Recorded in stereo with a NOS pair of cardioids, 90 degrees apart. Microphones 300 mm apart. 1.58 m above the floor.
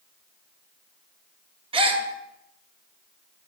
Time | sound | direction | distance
1.7 | a gasp | 20° right | 0.5 m